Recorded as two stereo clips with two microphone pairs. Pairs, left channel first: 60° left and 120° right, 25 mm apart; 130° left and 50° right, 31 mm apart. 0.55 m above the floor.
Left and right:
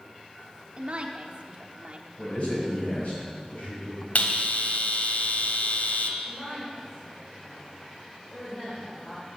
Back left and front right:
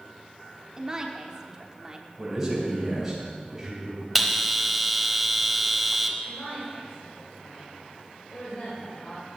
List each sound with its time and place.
0.8 s a woman speaking: 105° right, 1.0 m
2.2 s a man speaking: 30° left, 4 m
4.2 s a bell: 40° left, 0.9 m
6.2 s a woman speaking: 115° left, 2.5 m